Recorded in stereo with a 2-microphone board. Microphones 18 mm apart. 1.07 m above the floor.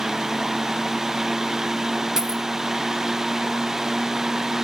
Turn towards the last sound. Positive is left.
turn(degrees=-35)  # may be behind; listen again after turning